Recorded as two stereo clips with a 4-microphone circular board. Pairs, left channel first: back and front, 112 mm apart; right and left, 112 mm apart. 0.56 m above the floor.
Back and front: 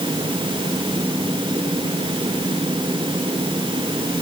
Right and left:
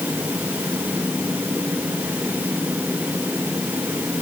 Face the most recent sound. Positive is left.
No sound to turn to.